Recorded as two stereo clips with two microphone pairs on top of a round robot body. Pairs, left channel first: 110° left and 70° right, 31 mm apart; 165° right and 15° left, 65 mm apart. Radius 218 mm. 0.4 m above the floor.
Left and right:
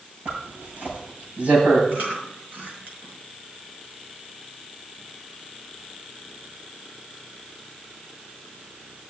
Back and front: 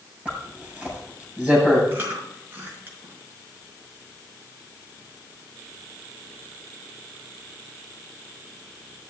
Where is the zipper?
55° right, 7 m.